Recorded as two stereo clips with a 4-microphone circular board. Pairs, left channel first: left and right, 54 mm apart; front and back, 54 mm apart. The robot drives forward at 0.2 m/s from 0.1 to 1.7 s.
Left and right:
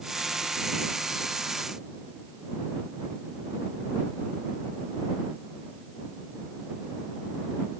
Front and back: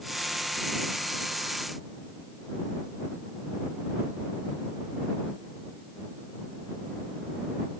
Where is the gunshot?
I don't hear a gunshot.